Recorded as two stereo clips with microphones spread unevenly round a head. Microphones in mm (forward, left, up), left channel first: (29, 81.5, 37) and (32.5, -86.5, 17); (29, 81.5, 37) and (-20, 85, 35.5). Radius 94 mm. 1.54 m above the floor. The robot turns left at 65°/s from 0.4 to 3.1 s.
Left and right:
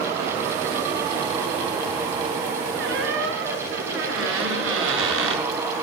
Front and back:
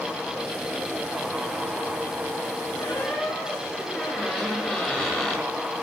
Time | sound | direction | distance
2.8 | a squeak | 65° right | 7.5 m